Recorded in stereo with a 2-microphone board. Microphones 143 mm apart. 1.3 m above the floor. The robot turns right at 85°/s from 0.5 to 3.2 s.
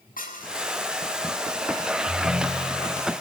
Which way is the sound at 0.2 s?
75° left (ahead or behind).